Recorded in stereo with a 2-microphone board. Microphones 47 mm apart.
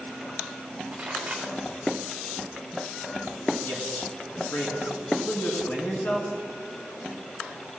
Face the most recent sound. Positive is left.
turn(degrees=45)  # may be behind; listen again after turning